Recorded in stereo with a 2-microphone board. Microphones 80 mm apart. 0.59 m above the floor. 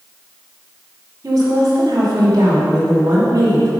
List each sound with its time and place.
1.2 s a woman speaking: 50° right (ahead or behind), 2 m